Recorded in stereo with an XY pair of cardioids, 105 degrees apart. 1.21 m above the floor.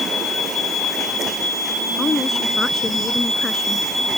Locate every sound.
2.0 s a woman speaking: 30° left; by 3.9 s 20° left